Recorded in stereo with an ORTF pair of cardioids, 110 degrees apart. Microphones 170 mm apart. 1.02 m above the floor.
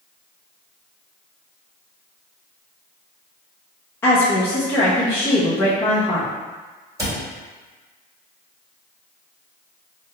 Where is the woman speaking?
15° left, 0.9 m.